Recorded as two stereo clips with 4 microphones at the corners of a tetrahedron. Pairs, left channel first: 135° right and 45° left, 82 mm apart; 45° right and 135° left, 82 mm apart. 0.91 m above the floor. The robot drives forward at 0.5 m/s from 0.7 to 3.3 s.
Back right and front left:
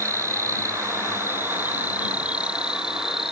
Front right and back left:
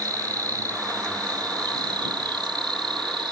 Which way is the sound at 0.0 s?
95° left.